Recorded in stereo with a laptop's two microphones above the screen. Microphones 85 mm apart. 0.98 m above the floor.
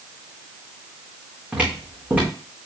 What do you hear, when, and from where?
1.5 s footsteps: 20° right (ahead or behind), 2.5 m